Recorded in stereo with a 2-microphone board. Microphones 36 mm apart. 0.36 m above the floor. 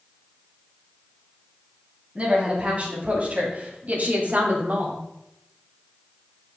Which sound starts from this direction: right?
A woman speaking, at 2.1 s.